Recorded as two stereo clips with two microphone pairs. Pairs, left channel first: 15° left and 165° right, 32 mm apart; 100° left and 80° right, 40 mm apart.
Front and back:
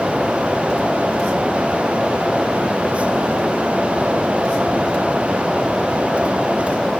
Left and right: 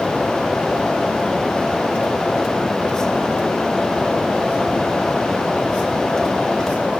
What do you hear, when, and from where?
Only background noise.